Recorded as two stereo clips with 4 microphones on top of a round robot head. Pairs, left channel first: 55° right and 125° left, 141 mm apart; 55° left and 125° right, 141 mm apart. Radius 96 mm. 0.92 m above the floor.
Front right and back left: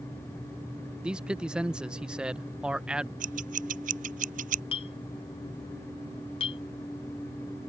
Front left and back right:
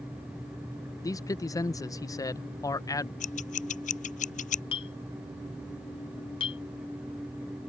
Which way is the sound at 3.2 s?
95° left.